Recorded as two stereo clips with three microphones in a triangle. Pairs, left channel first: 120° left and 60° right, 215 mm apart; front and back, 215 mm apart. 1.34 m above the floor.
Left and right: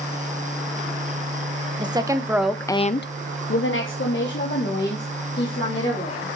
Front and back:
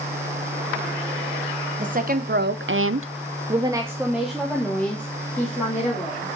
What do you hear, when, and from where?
1.8 s a woman speaking: 130° right, 1.3 m; by 6.3 s 80° left, 3.5 m